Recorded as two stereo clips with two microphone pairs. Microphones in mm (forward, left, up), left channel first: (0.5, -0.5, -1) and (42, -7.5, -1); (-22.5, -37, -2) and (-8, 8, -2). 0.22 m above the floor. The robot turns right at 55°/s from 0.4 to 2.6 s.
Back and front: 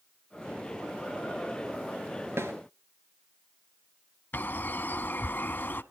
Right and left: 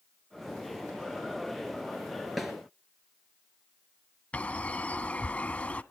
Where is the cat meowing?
No cat meowing in this recording.